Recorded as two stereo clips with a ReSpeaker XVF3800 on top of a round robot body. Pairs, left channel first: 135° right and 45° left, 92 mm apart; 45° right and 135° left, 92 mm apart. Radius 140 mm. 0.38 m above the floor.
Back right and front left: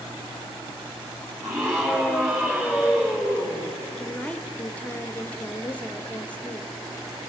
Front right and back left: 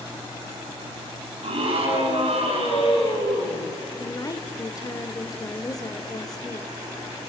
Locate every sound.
1.4 s a scream: 110° left, 6 m; by 3.8 s 120° left, 9 m
4.0 s a woman speaking: 65° right, 1.3 m